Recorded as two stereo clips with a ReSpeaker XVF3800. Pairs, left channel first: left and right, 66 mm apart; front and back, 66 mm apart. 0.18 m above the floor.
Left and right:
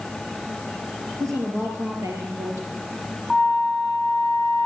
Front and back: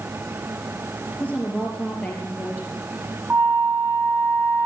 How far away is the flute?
About 0.6 m.